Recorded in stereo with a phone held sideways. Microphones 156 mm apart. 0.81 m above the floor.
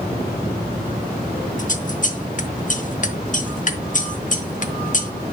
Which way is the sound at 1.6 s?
50° left (ahead or behind).